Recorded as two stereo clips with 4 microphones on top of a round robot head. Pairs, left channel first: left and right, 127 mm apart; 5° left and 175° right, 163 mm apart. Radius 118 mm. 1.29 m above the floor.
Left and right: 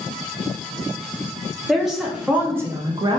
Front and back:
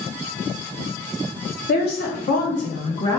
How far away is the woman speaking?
About 1.2 m.